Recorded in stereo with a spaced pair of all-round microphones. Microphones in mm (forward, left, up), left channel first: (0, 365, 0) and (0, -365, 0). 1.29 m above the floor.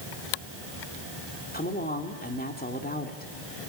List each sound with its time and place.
1.5 s a woman speaking: 10° left (ahead or behind), 3 m